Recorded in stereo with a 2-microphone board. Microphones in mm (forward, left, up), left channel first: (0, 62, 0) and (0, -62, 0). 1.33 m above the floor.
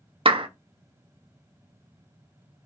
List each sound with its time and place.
0.2 s a clap: 45° right (ahead or behind), 0.7 m